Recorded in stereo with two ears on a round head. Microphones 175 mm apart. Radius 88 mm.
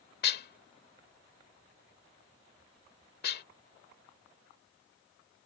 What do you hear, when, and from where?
0.2 s dishes clattering: 55° left (ahead or behind)